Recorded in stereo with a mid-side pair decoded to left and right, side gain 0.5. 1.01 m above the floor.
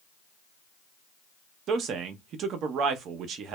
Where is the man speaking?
65° right, 0.7 m.